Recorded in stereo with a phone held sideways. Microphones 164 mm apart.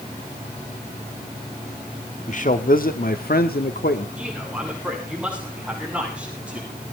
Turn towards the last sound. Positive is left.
turn(degrees=-5)  # may be behind; listen again after turning